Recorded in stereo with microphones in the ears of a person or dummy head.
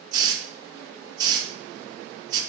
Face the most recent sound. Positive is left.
turn(degrees=-30)  # may be behind; listen again after turning